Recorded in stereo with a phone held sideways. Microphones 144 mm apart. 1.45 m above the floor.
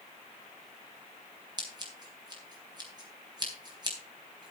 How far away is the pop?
No pop in this recording.